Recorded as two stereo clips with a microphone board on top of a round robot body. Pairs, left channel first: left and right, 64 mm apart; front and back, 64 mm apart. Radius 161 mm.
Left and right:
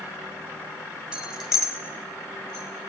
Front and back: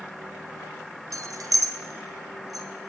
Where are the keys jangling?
165° right, 1.1 m; by 2.7 s 160° left, 1.9 m.